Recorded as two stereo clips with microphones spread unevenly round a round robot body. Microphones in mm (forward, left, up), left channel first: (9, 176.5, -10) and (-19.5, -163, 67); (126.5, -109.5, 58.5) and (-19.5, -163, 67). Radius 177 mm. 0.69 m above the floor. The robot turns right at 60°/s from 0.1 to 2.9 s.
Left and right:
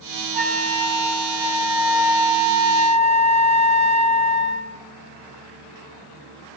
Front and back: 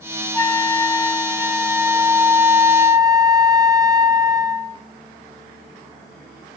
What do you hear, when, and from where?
0.3 s a flute: 35° left, 1.0 m; by 4.8 s 170° right, 1.0 m